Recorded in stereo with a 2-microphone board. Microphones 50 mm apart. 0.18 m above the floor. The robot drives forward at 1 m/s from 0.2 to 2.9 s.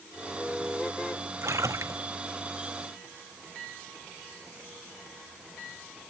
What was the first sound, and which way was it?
A splash, 70° right (ahead or behind).